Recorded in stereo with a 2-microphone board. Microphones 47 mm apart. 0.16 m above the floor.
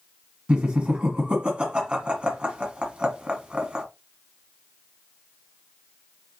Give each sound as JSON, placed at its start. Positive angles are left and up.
{"t": 0.5, "sound": "laughter", "side_deg": -25, "distance_m": 1.2}